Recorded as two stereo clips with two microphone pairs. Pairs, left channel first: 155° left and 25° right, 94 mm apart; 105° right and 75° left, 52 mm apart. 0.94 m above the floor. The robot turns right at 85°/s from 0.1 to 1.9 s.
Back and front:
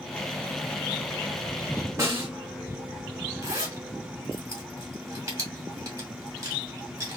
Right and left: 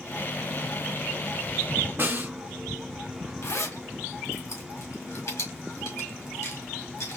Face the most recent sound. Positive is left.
turn(degrees=-80)